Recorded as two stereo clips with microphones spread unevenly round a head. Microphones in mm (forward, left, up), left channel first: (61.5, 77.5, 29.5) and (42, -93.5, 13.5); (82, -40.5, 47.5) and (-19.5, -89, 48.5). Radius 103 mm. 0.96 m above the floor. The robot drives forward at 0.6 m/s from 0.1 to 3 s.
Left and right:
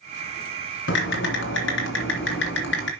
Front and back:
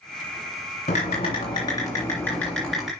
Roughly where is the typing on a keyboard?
Left.